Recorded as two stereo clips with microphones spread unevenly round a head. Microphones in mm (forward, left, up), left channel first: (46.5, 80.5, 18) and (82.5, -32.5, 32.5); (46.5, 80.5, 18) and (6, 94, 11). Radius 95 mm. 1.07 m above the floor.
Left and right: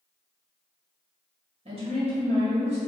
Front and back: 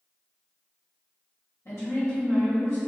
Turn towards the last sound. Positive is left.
turn(degrees=-45)